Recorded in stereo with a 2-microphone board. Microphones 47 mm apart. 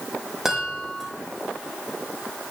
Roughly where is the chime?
Centre.